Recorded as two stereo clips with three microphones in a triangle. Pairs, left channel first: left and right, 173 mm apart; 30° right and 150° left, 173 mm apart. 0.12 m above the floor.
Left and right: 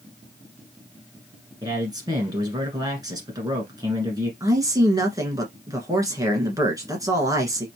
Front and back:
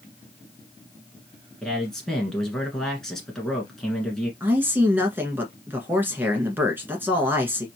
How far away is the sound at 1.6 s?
About 1.3 m.